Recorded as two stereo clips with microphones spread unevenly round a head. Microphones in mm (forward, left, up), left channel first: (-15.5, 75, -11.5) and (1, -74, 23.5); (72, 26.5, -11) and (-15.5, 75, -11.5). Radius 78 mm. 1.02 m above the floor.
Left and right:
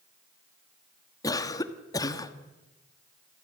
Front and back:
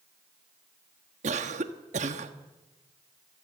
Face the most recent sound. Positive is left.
turn(degrees=165)